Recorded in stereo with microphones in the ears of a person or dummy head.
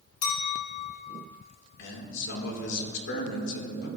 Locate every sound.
0.2 s a clink: 50° left (ahead or behind), 1.5 m
1.8 s a man speaking: 60° left (ahead or behind), 2 m